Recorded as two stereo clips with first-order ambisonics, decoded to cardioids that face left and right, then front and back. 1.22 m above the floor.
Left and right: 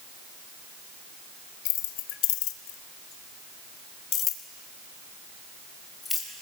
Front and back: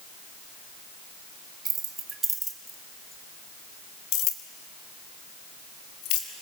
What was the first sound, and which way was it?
Keys jangling, 115° left.